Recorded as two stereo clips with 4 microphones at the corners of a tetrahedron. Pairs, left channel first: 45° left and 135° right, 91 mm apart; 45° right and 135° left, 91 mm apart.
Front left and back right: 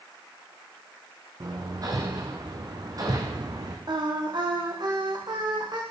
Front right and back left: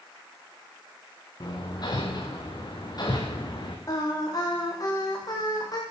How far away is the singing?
About 9 m.